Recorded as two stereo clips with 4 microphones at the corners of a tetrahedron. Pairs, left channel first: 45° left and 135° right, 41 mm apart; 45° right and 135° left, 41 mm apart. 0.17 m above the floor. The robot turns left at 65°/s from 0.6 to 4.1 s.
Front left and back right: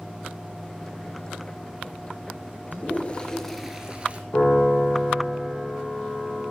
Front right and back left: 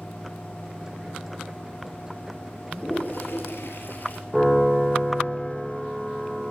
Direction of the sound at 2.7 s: 15° left.